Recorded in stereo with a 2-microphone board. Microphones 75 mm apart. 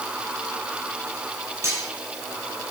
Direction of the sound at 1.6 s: 35° right (ahead or behind).